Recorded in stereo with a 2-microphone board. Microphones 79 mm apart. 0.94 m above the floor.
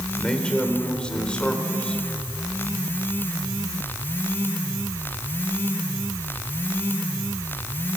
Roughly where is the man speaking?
Centre.